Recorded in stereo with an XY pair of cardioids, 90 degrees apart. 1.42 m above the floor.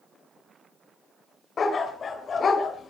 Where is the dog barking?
50° left, 3 m.